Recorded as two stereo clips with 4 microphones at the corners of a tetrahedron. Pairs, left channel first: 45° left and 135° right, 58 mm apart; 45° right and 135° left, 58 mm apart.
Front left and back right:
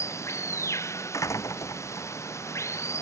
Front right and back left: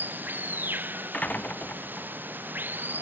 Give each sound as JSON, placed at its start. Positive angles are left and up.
{"t": 0.0, "sound": "running water", "azimuth_deg": 80}
{"t": 1.1, "sound": "a door slam", "azimuth_deg": 20}